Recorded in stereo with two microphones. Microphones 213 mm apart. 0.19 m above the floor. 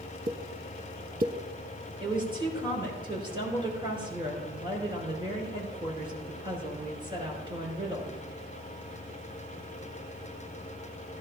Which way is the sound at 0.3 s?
40° right (ahead or behind).